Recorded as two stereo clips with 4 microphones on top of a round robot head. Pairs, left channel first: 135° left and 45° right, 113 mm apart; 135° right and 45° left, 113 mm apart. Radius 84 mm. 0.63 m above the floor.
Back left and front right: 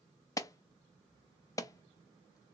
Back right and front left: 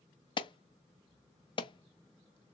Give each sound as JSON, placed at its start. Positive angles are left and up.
{"t": 0.4, "sound": "an alarm", "azimuth_deg": -170, "distance_m": 0.6}